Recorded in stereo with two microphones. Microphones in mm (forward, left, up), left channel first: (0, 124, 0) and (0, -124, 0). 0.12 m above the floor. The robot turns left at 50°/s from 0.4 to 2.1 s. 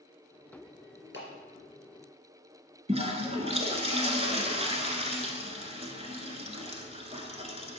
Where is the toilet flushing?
25° right (ahead or behind), 0.8 m.